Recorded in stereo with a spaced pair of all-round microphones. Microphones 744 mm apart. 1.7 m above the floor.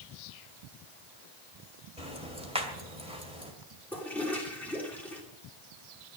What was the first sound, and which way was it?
Ticking, 5° right (ahead or behind).